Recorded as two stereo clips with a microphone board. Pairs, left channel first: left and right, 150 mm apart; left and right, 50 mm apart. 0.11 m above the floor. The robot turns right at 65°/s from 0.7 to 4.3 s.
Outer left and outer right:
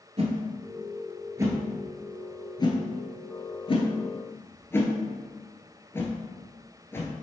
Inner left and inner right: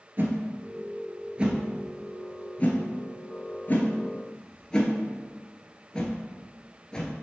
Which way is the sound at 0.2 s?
45° right (ahead or behind).